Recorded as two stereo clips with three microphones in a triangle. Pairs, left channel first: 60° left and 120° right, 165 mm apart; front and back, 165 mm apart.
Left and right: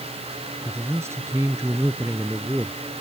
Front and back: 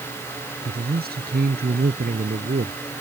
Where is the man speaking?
165° left.